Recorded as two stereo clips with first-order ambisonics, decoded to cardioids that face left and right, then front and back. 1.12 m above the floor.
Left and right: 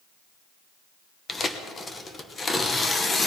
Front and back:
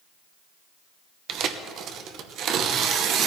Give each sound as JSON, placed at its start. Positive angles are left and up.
{"t": 1.3, "sound": "tearing paper", "azimuth_deg": 160, "distance_m": 0.8}